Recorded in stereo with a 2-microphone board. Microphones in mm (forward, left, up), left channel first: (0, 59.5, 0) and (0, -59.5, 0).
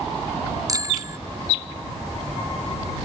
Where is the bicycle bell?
30° right (ahead or behind).